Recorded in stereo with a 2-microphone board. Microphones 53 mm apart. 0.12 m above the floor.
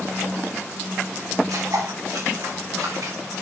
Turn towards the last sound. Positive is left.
turn(degrees=-85)